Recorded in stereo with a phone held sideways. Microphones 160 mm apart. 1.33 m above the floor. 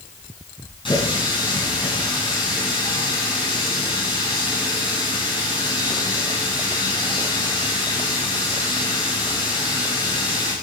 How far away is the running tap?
About 8.5 m.